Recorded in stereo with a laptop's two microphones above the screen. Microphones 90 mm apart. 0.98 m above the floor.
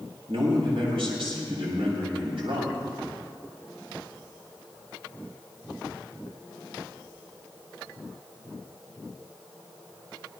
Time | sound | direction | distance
0.3 | a man speaking | 80° right | 6 m